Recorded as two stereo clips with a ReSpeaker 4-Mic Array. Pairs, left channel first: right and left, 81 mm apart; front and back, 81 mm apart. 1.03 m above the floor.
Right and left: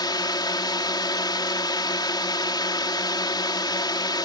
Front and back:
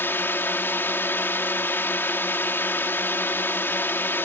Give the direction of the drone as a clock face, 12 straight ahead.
2 o'clock.